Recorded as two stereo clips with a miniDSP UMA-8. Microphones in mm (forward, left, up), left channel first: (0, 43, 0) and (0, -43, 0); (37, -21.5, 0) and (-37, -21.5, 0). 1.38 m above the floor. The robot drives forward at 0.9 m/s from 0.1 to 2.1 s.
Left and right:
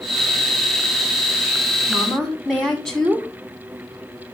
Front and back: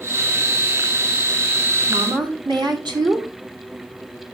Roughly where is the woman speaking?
Behind.